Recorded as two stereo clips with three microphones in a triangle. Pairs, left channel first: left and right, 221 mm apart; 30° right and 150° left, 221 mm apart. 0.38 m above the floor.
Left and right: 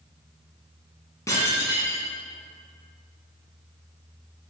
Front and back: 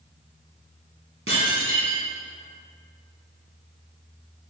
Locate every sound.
1.3 s dishes clattering: 165° left, 2.5 m